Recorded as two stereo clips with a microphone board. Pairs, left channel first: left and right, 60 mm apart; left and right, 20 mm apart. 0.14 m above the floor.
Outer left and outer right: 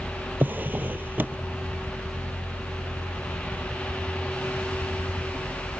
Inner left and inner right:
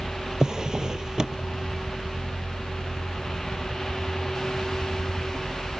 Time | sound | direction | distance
0.4 | a drawer | 30° right (ahead or behind) | ?